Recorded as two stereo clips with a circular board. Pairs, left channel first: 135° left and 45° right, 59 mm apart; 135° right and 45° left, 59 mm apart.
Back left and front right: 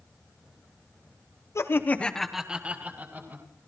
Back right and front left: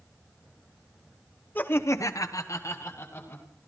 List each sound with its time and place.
1.6 s laughter: 165° left, 1.1 m; by 3.5 s 95° right, 2 m